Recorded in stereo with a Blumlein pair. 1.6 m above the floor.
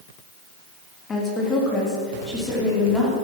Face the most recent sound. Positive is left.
turn(degrees=5)